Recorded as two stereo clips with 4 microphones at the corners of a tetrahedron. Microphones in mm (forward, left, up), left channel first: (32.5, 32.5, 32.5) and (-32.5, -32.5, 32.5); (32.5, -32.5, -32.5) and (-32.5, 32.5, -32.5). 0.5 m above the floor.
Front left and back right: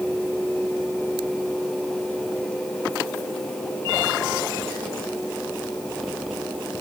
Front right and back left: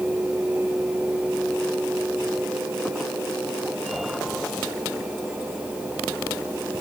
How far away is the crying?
No crying in this recording.